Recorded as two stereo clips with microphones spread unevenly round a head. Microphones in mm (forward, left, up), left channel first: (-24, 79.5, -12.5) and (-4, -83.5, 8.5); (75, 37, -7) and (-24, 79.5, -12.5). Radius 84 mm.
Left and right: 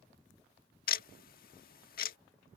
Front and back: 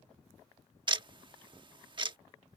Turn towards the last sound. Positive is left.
turn(degrees=125)